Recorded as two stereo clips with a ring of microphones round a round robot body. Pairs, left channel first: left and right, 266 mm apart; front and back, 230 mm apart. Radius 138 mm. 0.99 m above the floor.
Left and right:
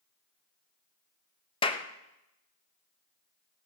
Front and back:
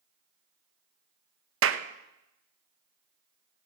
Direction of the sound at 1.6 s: 160° left.